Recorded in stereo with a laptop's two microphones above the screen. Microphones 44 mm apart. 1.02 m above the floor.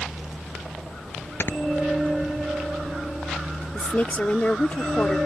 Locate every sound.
1.4 s snoring: 55° left (ahead or behind)
3.7 s a woman speaking: 35° left (ahead or behind)